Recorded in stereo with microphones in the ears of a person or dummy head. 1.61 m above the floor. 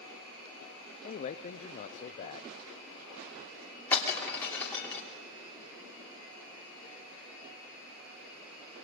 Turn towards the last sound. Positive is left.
turn(degrees=10)  # may be behind; listen again after turning